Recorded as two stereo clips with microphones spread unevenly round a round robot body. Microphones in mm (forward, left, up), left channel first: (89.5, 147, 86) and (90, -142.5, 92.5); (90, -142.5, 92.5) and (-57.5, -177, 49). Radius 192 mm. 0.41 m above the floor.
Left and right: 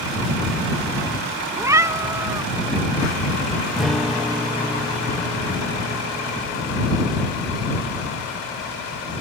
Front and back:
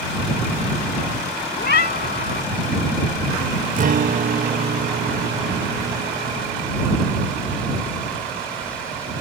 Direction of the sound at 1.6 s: 10° right.